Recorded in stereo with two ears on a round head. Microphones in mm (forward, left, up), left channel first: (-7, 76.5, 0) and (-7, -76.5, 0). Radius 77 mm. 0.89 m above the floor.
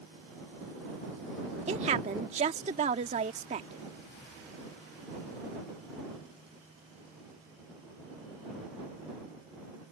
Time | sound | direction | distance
1.7 | a woman speaking | 40° right (ahead or behind) | ?